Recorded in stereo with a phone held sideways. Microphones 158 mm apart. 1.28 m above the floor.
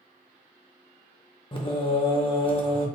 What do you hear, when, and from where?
1.5 s singing: 35° left (ahead or behind), 0.6 m